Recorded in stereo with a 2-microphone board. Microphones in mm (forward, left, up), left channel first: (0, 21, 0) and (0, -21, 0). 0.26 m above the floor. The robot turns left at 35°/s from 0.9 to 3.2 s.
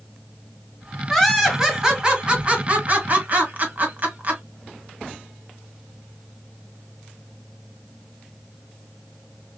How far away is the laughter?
About 1.3 m.